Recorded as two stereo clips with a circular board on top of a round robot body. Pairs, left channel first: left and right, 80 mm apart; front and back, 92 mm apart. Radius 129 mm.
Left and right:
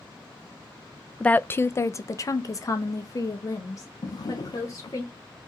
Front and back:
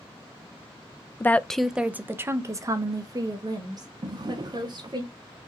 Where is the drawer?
135° left, 0.5 m.